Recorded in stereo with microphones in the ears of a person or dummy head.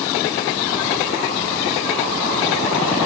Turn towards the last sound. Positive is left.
No sound to turn to.